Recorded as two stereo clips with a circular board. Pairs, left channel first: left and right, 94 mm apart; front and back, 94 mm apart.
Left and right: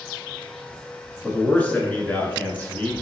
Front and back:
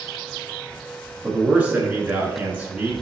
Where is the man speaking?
135° left, 1.1 m.